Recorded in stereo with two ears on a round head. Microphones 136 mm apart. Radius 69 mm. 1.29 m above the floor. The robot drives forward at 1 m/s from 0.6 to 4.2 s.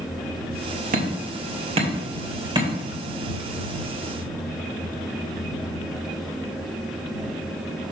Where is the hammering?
60° right (ahead or behind), 1.7 m; by 2.7 s 30° right (ahead or behind), 3 m.